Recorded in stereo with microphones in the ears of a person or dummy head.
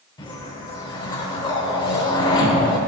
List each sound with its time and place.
0.2 s a whoosh: 25° left (ahead or behind), 1.1 m